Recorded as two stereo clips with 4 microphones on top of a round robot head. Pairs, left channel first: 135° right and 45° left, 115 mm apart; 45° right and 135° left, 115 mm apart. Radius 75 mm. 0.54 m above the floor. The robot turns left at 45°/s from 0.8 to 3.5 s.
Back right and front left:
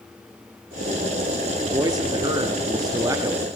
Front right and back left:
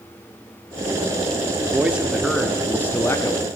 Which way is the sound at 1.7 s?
75° left.